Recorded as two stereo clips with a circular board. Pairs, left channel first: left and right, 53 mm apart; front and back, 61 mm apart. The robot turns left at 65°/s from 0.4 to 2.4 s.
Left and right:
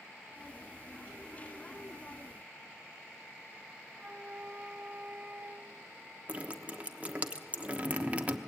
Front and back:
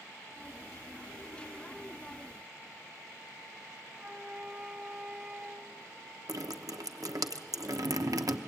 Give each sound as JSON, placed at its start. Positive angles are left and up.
{"t": 3.9, "sound": "a flute", "azimuth_deg": -120, "distance_m": 0.9}
{"t": 6.3, "sound": "dripping", "azimuth_deg": -155, "distance_m": 1.0}